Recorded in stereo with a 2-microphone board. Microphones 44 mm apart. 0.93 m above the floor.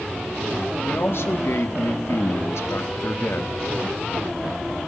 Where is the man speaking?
60° left (ahead or behind), 1.8 m; by 3.6 s 50° left (ahead or behind), 1.3 m.